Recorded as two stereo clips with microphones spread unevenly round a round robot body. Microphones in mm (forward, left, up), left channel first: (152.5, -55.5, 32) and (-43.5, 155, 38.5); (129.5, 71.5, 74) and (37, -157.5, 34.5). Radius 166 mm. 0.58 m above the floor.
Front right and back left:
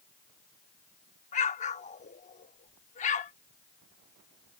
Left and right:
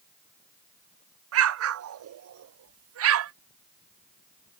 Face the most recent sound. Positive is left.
turn(degrees=-115)